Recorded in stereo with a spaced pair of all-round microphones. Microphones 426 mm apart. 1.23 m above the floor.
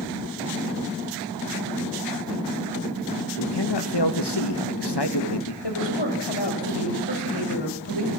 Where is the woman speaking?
85° left, 7.5 m.